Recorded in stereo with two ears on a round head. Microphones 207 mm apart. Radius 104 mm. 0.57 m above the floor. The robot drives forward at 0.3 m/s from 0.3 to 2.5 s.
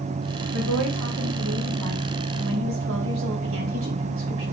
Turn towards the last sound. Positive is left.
turn(degrees=-60)  # may be behind; listen again after turning